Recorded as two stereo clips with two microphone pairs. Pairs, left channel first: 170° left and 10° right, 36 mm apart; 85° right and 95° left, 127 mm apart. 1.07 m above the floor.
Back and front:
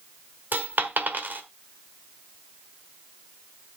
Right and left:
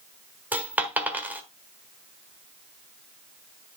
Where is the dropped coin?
20° left, 1.4 m.